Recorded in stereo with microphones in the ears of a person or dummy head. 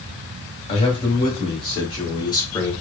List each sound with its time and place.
0.7 s a man speaking: 30° left (ahead or behind), 2 m; by 2.7 s 15° left (ahead or behind), 1.0 m